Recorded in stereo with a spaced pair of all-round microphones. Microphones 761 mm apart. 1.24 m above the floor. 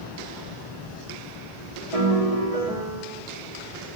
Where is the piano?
50° right (ahead or behind), 2 m.